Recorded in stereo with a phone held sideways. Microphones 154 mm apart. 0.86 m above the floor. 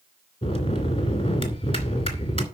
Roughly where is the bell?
Left.